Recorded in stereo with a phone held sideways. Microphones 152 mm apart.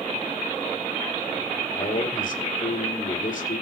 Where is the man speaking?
60° left (ahead or behind), 4 m.